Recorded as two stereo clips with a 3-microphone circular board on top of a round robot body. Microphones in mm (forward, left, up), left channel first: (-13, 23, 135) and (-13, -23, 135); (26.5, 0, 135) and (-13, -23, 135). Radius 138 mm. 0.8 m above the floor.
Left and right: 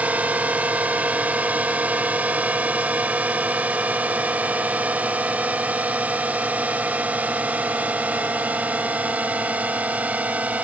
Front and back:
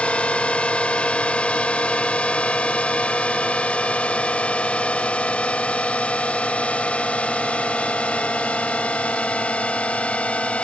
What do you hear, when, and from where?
0.0 s a drone: 35° right